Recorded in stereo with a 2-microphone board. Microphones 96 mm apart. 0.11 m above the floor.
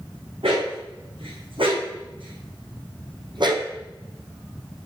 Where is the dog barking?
80° right, 3.5 m; by 3.7 s 55° right (ahead or behind), 1.6 m.